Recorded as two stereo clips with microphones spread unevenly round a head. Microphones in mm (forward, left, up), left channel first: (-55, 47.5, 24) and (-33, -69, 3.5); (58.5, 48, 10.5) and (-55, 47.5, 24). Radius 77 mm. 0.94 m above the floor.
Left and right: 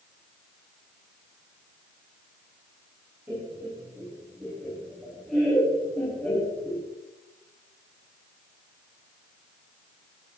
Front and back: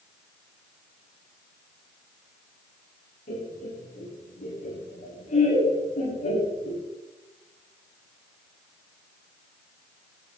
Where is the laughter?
5° right, 8.5 m; by 6.8 s 20° left, 8 m.